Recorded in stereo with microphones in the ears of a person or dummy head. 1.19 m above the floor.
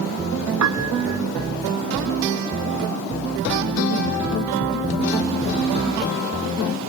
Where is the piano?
70° right (ahead or behind).